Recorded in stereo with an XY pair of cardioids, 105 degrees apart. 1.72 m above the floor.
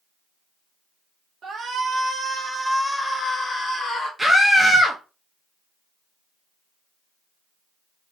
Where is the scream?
10° right, 0.6 m.